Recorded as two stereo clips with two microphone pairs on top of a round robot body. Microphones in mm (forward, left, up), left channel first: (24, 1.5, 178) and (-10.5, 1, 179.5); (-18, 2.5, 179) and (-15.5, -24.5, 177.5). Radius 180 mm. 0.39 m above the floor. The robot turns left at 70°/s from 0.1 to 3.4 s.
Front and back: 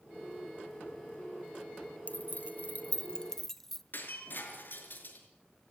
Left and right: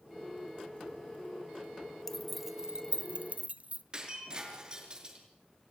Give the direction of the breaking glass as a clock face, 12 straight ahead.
1 o'clock.